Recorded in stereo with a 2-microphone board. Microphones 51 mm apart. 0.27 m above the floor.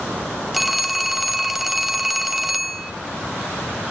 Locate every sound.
0.5 s a phone ringing: centre (ahead or behind), 0.6 m